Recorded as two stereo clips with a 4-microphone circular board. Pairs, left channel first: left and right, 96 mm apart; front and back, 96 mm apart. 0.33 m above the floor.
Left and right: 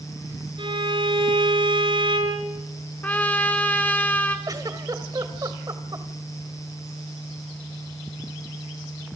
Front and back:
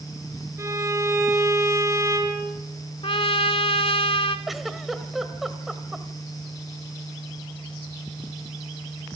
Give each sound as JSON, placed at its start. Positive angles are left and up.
{"t": 0.6, "sound": "a violin", "azimuth_deg": -120, "distance_m": 5.5}
{"t": 3.0, "sound": "a trumpet", "azimuth_deg": 15, "distance_m": 1.3}
{"t": 4.5, "sound": "a giggle", "azimuth_deg": -90, "distance_m": 1.5}